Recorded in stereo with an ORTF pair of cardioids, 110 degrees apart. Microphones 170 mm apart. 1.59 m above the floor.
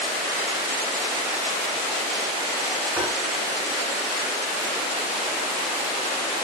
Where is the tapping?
10° right, 1.1 m.